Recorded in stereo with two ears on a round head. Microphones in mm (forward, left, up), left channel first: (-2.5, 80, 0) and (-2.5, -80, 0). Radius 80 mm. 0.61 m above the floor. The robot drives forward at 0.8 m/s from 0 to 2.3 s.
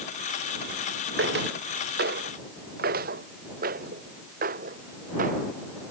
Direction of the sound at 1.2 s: 70° right (ahead or behind).